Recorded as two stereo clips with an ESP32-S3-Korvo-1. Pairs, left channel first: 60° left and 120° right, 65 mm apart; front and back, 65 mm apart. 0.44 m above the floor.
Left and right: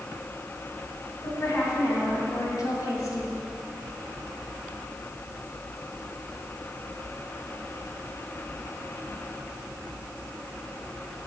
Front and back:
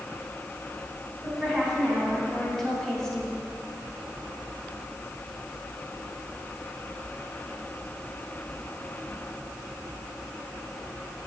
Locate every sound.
1.2 s a woman speaking: 100° left, 3.5 m; by 3.4 s 70° left, 2 m